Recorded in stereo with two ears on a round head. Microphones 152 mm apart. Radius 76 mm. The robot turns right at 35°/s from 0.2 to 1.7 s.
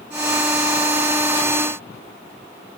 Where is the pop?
No pop in this recording.